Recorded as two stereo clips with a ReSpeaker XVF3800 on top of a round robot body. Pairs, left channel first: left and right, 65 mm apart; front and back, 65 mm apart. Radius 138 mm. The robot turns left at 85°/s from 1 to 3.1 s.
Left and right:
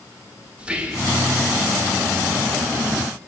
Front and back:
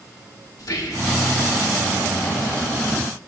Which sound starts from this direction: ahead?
Whispering, at 0.6 s.